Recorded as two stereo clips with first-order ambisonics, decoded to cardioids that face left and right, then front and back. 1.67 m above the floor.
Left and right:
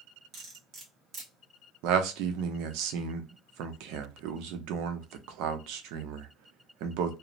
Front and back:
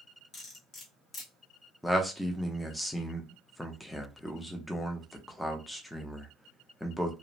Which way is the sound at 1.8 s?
90° right.